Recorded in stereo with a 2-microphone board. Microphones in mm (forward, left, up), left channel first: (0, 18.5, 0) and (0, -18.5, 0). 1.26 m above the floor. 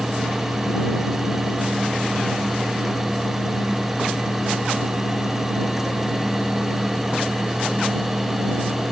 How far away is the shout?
No shout in this recording.